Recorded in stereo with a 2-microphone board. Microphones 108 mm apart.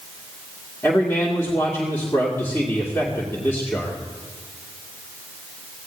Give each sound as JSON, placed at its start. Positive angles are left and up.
{"t": 0.8, "sound": "a man speaking", "side_deg": 20, "distance_m": 2.0}